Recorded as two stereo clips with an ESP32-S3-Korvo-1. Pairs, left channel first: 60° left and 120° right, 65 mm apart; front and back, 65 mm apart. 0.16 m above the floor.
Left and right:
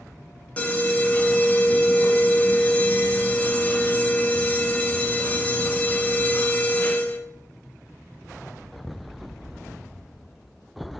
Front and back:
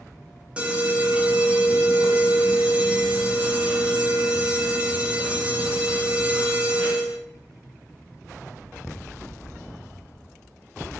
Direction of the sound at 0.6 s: 115° left.